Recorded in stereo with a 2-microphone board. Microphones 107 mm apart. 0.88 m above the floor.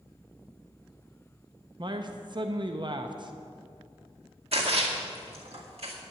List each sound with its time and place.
1.8 s a man speaking: 45° right (ahead or behind), 0.6 m
4.5 s a splash: 65° right (ahead or behind), 2 m